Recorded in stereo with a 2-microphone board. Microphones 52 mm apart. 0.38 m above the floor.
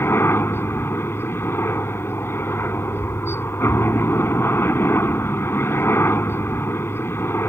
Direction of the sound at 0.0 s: 50° left (ahead or behind).